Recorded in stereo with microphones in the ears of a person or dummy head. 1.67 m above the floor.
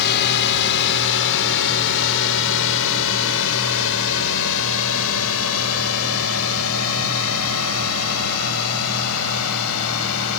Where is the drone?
55° left (ahead or behind); by 10.4 s 80° left.